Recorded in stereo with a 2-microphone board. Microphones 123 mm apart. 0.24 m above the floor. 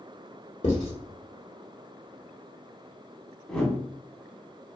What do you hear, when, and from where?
0.6 s writing: 65° left (ahead or behind), 1.1 m
3.5 s a whoosh: 10° left (ahead or behind), 0.7 m